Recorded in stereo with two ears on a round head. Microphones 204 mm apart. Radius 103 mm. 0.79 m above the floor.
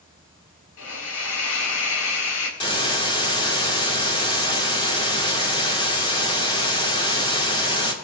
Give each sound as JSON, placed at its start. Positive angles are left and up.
{"t": 0.8, "sound": "a hiss", "side_deg": 80, "distance_m": 3.5}
{"t": 2.6, "sound": "a hiss", "side_deg": 20, "distance_m": 2.0}